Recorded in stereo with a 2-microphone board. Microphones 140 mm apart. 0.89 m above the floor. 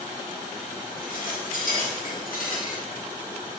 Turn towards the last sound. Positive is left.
turn(degrees=70)  # may be behind; listen again after turning